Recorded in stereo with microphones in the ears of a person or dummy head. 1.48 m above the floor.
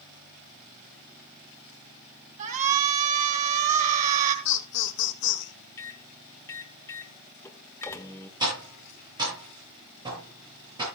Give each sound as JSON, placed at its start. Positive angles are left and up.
{"t": 2.4, "sound": "a shout", "side_deg": -40, "distance_m": 3.5}
{"t": 4.5, "sound": "laughter", "side_deg": 60, "distance_m": 1.6}
{"t": 5.8, "sound": "a microwave", "side_deg": 15, "distance_m": 1.1}
{"t": 8.4, "sound": "tapping", "side_deg": -25, "distance_m": 10.0}